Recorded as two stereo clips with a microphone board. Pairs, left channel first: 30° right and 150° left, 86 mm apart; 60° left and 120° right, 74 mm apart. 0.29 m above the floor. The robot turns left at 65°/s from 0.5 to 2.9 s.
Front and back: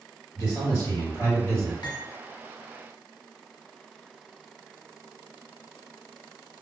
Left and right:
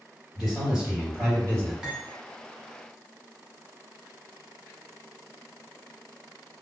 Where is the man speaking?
30° right, 1.8 m; by 1.7 s 110° right, 1.8 m.